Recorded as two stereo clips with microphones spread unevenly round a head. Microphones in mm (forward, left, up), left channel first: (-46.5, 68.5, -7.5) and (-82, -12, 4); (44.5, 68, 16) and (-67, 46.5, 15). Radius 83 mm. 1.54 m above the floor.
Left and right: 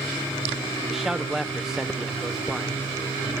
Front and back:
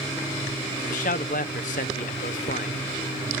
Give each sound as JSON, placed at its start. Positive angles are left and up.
{"t": 0.9, "sound": "a man speaking", "azimuth_deg": -25, "distance_m": 0.9}